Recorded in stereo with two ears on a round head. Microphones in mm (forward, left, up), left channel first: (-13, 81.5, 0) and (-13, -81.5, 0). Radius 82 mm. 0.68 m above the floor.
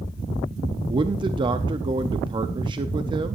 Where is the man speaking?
25° right (ahead or behind), 0.6 m.